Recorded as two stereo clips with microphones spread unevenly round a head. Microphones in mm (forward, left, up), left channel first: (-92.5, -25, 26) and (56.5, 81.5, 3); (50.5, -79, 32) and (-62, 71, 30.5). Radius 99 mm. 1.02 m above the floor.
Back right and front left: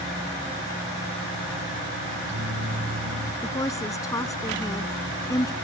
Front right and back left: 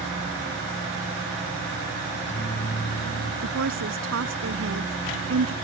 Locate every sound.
2.1 s a microwave: straight ahead
3.4 s a woman speaking: 145° left